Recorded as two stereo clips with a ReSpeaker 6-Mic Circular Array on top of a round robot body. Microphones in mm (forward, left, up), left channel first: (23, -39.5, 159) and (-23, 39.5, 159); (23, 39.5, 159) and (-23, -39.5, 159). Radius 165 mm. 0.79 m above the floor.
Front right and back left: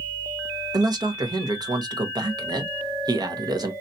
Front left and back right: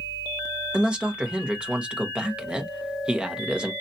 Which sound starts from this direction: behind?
A man speaking, at 0.7 s.